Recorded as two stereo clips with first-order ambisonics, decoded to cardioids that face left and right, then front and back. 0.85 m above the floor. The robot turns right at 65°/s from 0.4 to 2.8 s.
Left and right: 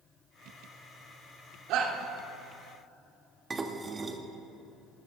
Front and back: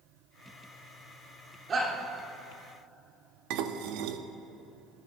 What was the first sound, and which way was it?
A shout, 120° right.